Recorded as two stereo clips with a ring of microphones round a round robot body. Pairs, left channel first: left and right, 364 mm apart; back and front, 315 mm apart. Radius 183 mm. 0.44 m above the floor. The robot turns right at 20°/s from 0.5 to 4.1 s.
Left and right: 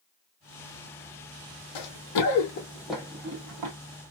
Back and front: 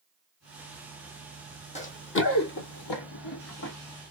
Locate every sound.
1.8 s running footsteps: 110° left, 1.1 m; by 3.7 s 120° right, 0.9 m